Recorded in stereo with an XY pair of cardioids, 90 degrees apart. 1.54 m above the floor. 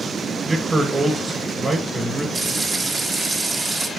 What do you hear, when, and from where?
0.5 s a man speaking: 25° right, 2 m
2.4 s frying: 40° right, 1.7 m